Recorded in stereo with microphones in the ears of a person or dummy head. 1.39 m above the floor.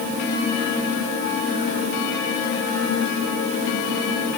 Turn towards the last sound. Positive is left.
No sound to turn to.